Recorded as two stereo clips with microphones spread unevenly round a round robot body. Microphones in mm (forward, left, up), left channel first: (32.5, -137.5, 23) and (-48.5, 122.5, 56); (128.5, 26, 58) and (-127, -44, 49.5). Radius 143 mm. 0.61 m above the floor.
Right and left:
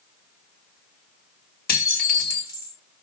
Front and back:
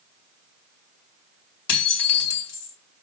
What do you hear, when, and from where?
1.7 s dishes clattering: 15° right, 2 m